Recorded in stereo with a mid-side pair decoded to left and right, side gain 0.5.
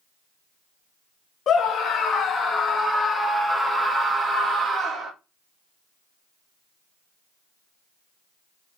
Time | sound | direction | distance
1.5 | a scream | 45° left | 1.7 m